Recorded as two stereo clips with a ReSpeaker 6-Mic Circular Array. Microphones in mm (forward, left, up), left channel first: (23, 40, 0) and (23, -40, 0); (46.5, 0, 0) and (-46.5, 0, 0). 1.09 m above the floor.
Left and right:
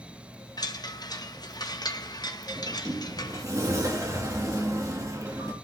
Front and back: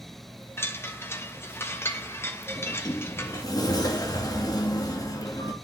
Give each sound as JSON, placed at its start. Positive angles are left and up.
{"t": 0.6, "sound": "a chime", "azimuth_deg": 60, "distance_m": 1.1}
{"t": 2.6, "sound": "a sliding door", "azimuth_deg": -45, "distance_m": 2.5}